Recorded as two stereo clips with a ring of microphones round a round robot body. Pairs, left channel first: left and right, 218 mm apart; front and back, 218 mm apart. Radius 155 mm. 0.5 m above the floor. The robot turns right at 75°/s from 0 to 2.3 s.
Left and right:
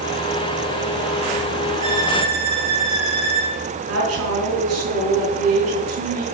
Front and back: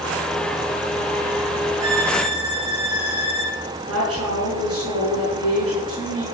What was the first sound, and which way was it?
A violin, 135° right.